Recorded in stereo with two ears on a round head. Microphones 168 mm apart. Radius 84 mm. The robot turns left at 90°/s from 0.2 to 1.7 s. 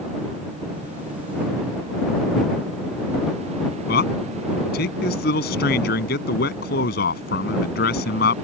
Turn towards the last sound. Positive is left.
turn(degrees=55)  # may be behind; listen again after turning